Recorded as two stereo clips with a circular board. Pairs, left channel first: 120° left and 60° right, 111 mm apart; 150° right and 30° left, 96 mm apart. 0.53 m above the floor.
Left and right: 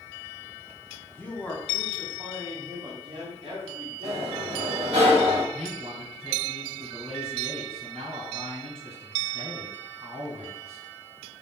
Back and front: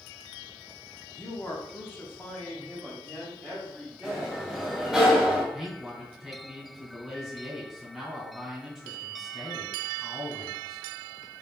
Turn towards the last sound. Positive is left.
turn(degrees=-55)